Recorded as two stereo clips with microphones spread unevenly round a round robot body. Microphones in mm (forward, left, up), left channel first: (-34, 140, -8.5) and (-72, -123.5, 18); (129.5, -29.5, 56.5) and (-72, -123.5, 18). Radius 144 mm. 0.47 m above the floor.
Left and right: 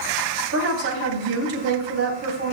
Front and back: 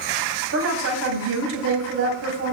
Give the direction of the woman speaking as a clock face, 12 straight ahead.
5 o'clock.